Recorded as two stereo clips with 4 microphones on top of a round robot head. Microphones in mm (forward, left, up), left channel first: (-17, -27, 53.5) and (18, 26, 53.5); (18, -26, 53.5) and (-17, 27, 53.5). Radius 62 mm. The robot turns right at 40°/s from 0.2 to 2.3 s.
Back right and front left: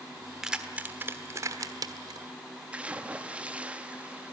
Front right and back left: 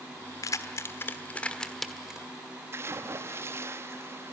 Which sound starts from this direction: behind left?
A splash, at 2.7 s.